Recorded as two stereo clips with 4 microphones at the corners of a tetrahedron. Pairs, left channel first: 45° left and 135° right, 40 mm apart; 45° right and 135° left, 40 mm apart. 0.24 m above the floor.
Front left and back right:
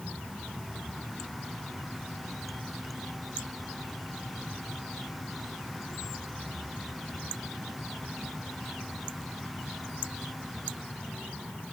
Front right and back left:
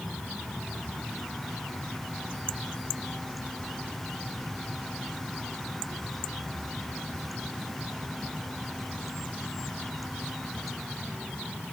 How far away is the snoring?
No snoring in this recording.